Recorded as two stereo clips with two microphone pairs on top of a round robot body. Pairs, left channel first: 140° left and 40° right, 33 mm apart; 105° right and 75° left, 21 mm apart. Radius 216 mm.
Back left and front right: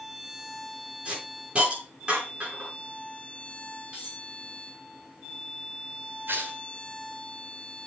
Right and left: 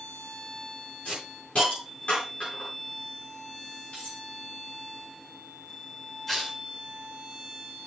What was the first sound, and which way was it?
A hiss, 100° right.